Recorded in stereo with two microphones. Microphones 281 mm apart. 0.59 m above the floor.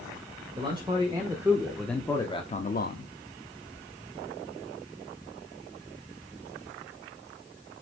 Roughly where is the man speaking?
Centre.